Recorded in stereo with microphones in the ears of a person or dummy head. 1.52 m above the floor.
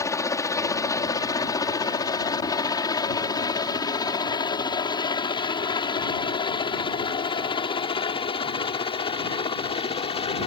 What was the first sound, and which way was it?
A helicopter, 15° left (ahead or behind).